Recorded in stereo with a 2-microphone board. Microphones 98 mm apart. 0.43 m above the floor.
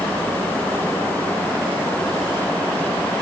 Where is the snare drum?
I don't hear a snare drum.